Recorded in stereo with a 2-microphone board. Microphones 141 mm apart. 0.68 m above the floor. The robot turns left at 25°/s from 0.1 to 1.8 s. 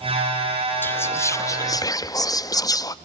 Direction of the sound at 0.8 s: 15° left (ahead or behind).